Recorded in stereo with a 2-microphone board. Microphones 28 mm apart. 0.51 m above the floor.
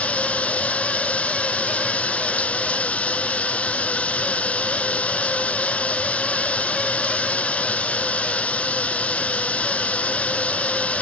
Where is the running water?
55° left (ahead or behind).